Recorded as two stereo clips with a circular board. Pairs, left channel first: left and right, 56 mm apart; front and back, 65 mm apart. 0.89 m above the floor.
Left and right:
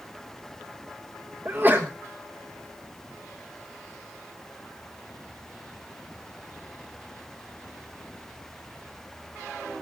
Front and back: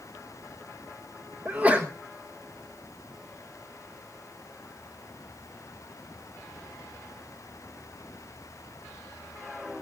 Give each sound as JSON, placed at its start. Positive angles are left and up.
{"t": 1.4, "sound": "a sneeze", "azimuth_deg": -125, "distance_m": 1.2}